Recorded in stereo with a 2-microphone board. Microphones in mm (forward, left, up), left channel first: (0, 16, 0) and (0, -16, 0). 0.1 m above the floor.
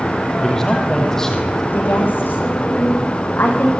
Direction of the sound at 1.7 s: 80° left.